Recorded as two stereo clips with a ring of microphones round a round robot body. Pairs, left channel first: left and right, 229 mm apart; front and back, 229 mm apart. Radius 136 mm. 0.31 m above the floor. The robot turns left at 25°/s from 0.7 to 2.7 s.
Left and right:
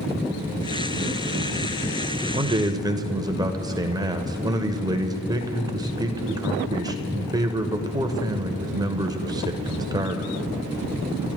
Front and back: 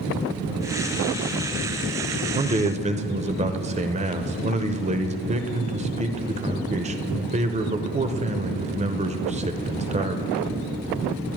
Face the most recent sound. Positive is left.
turn(degrees=-150)